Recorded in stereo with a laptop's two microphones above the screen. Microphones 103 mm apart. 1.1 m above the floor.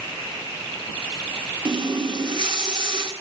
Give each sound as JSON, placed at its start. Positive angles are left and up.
{"t": 1.6, "sound": "a running tap", "side_deg": -50, "distance_m": 2.0}